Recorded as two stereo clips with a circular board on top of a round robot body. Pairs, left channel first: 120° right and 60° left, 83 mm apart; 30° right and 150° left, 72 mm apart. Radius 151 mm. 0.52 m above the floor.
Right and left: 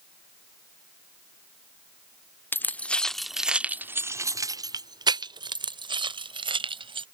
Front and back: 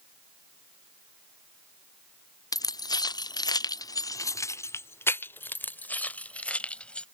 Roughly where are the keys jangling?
Ahead right.